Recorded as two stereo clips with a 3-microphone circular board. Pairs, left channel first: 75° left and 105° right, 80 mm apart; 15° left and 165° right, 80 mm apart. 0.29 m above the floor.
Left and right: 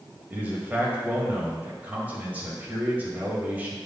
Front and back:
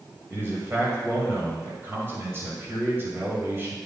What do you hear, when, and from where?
0.3 s a man speaking: 150° right, 1.7 m